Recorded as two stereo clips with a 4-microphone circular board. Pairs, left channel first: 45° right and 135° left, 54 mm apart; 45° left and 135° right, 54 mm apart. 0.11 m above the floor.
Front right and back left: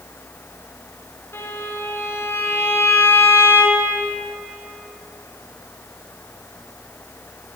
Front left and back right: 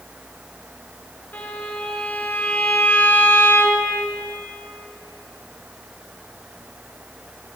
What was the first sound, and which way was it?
A violin, 10° right.